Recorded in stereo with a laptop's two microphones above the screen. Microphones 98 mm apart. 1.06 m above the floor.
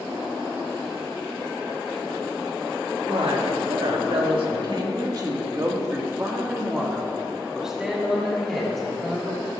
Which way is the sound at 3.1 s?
80° right.